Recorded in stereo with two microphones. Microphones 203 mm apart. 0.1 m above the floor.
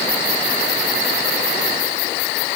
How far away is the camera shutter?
I don't hear a camera shutter.